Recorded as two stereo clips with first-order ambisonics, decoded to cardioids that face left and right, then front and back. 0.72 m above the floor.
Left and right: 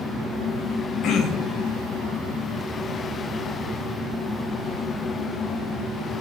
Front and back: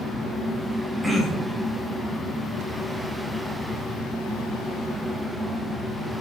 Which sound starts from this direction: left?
Throat clearing, at 1.0 s.